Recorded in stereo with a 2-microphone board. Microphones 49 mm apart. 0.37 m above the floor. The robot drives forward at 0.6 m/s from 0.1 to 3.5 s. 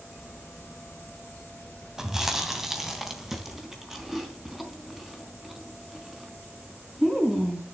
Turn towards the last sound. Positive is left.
turn(degrees=-10)  # may be behind; listen again after turning